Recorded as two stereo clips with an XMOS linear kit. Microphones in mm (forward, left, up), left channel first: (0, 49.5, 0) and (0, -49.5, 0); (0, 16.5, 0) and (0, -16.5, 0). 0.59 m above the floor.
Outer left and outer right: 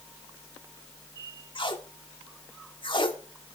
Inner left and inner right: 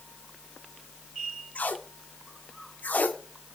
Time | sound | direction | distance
1.6 | tape being pulled | 50° left (ahead or behind) | 1.4 m